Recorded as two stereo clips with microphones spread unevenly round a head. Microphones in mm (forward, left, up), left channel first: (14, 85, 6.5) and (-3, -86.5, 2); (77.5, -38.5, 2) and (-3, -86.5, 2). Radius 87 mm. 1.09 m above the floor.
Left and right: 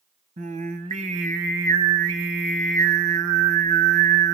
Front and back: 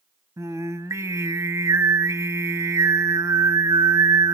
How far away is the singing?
About 1.1 m.